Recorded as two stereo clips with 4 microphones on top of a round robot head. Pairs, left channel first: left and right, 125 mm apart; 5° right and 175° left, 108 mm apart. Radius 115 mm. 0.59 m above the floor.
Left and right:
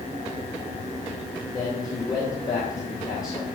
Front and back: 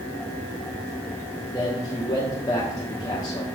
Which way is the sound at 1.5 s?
35° left.